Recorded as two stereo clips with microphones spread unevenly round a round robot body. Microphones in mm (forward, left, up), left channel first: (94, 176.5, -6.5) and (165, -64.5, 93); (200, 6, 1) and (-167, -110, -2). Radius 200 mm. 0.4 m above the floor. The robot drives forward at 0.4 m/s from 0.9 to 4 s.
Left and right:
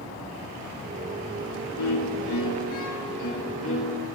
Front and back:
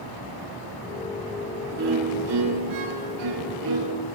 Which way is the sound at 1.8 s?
135° left.